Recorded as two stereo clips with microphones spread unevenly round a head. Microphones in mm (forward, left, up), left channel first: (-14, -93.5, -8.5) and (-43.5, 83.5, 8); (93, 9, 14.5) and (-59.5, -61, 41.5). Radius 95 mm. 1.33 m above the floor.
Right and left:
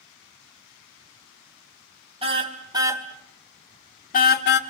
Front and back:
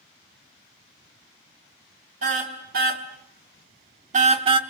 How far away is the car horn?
About 3 m.